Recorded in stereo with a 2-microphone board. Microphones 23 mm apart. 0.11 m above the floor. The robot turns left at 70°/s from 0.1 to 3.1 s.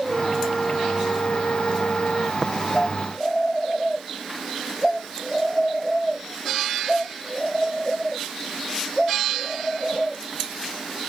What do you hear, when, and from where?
0.1 s a flute: 160° right; by 2.3 s 45° left
2.4 s tapping: 35° right (ahead or behind); by 2.5 s 30° right (ahead or behind)